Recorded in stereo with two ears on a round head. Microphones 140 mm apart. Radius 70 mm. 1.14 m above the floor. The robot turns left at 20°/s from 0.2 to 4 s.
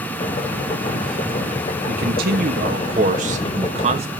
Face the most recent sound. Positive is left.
turn(degrees=-135)